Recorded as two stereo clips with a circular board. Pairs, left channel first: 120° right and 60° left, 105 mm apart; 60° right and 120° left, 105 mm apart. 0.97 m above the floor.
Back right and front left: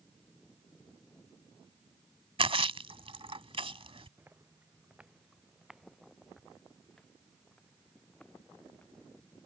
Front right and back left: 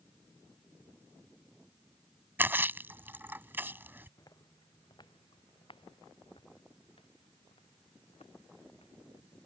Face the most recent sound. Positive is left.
turn(degrees=-45)